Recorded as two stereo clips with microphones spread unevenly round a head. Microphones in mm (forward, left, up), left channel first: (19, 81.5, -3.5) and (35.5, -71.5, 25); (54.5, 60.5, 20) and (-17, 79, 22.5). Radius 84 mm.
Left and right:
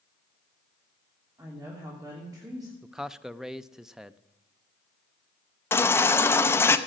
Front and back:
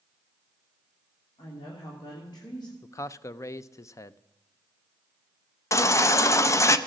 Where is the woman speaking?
15° right, 3 m.